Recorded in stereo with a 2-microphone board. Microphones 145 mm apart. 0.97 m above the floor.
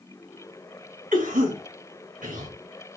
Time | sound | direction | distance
1.1 | a cough | 65° right (ahead or behind) | 2.5 m